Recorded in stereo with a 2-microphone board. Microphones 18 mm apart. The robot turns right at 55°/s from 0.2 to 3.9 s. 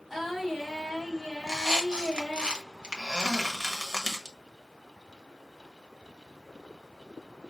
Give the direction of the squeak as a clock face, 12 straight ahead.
5 o'clock.